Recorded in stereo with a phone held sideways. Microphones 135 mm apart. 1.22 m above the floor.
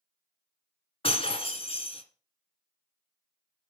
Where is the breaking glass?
45° left (ahead or behind), 1.8 m.